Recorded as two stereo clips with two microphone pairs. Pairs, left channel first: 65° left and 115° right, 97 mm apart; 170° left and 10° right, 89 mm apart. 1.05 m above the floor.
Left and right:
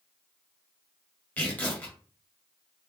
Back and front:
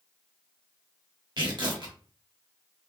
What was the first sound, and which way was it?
Tearing paper, 5° right.